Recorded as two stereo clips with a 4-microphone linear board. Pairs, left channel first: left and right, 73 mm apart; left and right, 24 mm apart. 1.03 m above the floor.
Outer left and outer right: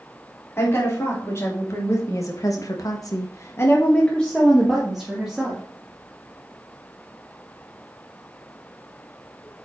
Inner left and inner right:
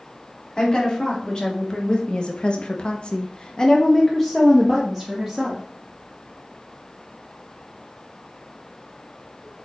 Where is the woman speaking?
35° left (ahead or behind), 3 m; by 5.6 s 5° right (ahead or behind), 2 m.